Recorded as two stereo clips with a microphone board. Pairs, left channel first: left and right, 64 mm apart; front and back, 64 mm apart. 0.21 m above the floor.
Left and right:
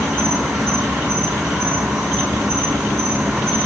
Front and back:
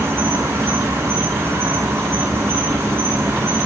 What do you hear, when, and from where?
0.0 s an insect: 165° right, 2 m